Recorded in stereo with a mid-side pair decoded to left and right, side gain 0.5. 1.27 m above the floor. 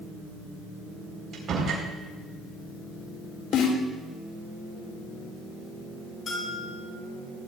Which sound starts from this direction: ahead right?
A door slam, at 1.3 s.